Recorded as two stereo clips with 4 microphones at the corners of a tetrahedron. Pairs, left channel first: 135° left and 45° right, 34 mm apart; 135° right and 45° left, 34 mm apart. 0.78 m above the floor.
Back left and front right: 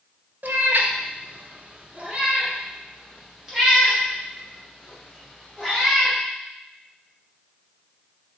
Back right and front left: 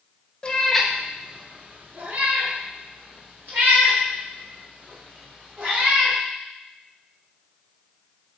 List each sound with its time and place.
0.4 s a cat meowing: 75° right, 0.5 m; by 6.2 s 40° left, 3 m